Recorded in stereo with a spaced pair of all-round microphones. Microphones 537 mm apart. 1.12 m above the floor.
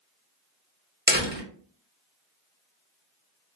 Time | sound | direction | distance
1.1 | a door slam | 20° right (ahead or behind) | 1.6 m